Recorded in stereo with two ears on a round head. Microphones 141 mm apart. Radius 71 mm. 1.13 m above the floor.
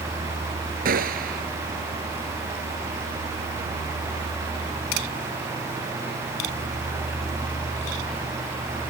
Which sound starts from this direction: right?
A gunshot, at 0.8 s.